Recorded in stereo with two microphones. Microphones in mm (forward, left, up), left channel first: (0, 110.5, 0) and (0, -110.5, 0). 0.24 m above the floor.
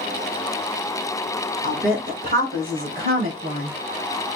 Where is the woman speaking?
35° right (ahead or behind), 1.7 m; by 3.8 s 45° right (ahead or behind), 3 m.